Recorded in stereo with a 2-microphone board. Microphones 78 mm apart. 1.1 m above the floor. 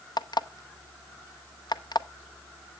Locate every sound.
0.2 s an alarm clock: 65° left (ahead or behind), 0.7 m